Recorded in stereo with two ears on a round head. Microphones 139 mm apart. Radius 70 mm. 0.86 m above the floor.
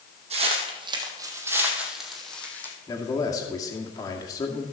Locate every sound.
0.3 s footsteps: 45° right (ahead or behind), 2.5 m; by 2.7 s 10° left (ahead or behind), 2.5 m
2.9 s a man speaking: 25° left (ahead or behind), 2 m